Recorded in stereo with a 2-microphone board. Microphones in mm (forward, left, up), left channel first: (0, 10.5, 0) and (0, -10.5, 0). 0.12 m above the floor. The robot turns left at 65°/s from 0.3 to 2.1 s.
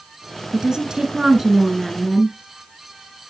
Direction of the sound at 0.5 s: 80° right.